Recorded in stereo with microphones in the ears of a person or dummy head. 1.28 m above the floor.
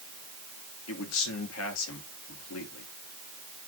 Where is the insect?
I don't hear an insect.